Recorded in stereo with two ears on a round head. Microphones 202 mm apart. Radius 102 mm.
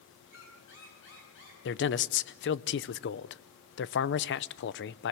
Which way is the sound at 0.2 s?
55° left (ahead or behind).